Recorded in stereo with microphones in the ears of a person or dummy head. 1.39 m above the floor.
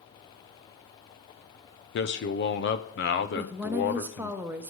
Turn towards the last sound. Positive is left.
turn(degrees=-10)  # may be behind; listen again after turning